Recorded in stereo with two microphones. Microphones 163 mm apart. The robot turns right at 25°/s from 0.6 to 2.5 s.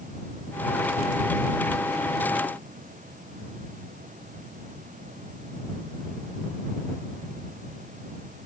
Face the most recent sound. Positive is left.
No sound to turn to.